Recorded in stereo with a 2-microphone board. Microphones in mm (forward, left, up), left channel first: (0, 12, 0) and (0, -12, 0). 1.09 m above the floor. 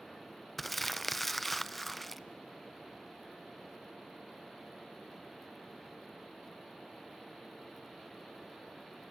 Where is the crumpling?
Centre (ahead or behind), 0.5 m.